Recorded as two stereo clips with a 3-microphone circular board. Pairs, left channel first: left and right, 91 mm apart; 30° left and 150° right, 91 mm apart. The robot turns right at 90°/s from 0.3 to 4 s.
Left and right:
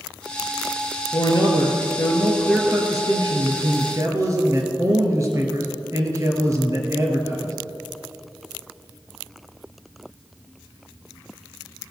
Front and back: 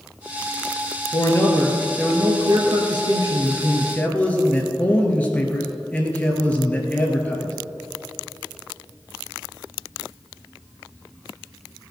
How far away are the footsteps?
I don't hear footsteps.